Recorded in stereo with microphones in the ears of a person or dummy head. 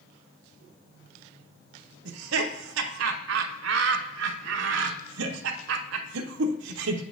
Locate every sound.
2.0 s laughter: 75° right (ahead or behind), 0.7 m